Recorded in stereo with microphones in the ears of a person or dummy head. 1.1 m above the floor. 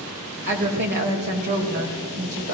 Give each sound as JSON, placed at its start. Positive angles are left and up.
{"t": 0.5, "sound": "a woman speaking", "side_deg": -55, "distance_m": 4.5}